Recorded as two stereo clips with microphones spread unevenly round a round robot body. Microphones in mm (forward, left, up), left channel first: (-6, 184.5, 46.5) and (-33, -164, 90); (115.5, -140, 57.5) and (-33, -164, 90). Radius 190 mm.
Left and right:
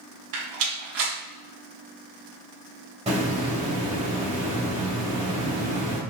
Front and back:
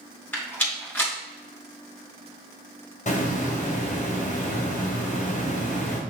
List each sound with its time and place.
0.3 s a rattle: 65° right, 3.5 m
3.1 s a hiss: 20° right, 3 m